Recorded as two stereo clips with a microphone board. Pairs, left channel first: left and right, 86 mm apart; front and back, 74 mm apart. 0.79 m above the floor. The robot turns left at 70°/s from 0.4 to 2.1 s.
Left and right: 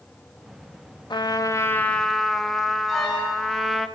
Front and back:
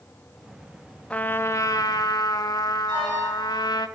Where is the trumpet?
70° left, 0.6 m; by 3.9 s straight ahead, 0.6 m.